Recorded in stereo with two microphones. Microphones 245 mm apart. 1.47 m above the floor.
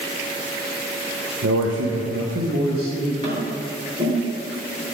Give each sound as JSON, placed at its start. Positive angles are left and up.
{"t": 1.4, "sound": "a man speaking", "side_deg": -70, "distance_m": 1.0}
{"t": 3.2, "sound": "tapping", "side_deg": -30, "distance_m": 3.5}